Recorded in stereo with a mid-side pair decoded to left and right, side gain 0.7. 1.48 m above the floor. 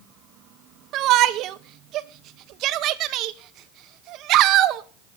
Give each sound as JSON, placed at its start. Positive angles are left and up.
{"t": 0.9, "sound": "a shout", "azimuth_deg": -55, "distance_m": 1.2}